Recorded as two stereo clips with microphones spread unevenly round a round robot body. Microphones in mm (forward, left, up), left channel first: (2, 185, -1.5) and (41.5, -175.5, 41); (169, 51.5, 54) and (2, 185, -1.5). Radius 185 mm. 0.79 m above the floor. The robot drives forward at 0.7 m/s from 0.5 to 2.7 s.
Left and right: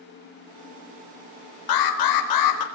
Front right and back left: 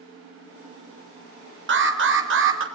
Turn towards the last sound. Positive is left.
turn(degrees=130)